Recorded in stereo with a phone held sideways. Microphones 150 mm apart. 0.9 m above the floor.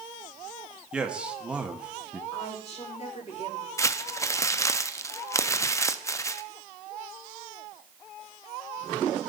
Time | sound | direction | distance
0.9 | a man speaking | 5° right (ahead or behind) | 1.3 m
2.3 | a woman speaking | 45° left (ahead or behind) | 2.5 m
3.8 | crumpling | 20° left (ahead or behind) | 0.5 m